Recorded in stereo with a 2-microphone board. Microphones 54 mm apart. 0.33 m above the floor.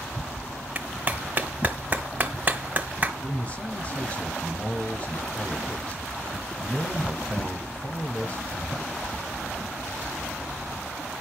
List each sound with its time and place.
0.8 s a clap: 30° right (ahead or behind), 1.4 m
3.2 s a man speaking: 25° left (ahead or behind), 1.5 m